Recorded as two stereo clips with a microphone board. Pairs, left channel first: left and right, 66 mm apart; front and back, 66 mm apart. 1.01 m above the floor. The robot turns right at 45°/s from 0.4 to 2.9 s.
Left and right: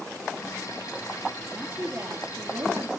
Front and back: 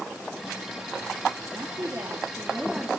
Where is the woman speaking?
165° right, 1.7 m; by 3.0 s 105° right, 1.7 m.